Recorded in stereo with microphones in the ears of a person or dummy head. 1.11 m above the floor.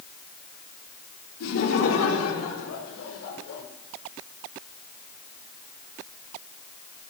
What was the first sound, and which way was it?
Laughter, 85° left.